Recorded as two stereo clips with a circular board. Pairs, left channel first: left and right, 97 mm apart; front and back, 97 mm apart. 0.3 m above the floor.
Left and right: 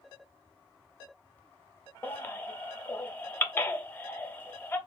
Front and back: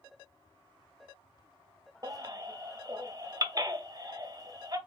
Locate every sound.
2.0 s a baby crying: 150° left, 0.5 m